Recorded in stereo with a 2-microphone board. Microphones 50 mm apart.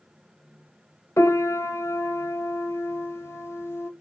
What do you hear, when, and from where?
1.2 s a piano: 65° left (ahead or behind), 1.0 m